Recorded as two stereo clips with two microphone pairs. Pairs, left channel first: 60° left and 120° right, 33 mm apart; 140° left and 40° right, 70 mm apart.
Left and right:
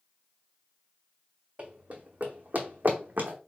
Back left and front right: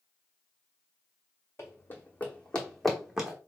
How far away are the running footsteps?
About 1.0 m.